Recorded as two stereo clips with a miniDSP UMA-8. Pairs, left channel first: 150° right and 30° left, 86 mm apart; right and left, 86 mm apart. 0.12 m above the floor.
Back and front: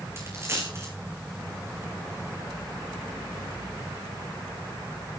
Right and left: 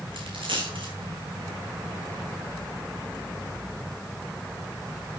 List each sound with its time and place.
0.2 s a dropped coin: 90° left, 4.5 m